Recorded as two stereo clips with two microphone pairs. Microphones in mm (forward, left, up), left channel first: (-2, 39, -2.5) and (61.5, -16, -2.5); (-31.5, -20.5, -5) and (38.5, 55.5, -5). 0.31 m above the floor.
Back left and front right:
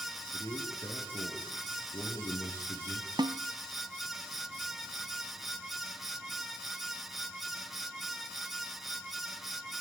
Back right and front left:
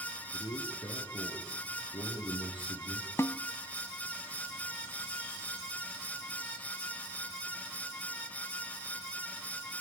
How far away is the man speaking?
About 5.5 m.